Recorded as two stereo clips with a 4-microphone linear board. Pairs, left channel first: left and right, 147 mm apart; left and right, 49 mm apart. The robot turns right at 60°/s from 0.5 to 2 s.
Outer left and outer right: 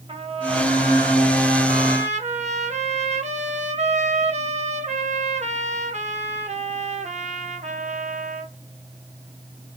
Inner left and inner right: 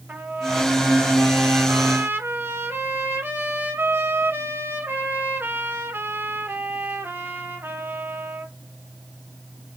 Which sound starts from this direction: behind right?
A trumpet, at 0.1 s.